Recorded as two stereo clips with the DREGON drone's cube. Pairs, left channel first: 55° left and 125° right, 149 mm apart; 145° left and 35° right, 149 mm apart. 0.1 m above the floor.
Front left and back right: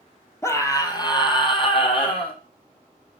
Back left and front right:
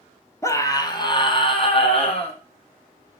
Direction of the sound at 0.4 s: 100° left.